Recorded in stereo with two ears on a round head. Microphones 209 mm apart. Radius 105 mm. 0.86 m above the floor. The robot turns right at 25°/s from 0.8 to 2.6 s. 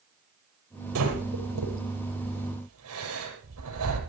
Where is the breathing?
70° right (ahead or behind), 6 m.